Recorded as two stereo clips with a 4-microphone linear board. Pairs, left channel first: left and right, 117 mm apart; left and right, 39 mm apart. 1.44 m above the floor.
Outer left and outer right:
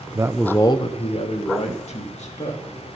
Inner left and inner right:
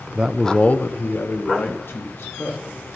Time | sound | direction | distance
0.1 | a man speaking | 30° right (ahead or behind) | 0.6 m